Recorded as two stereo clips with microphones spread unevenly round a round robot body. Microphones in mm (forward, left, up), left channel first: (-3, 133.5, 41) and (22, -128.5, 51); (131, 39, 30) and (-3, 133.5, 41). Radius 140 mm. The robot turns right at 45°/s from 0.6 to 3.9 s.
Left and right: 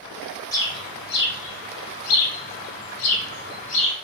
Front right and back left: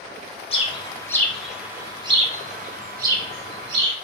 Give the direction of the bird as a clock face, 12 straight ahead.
11 o'clock.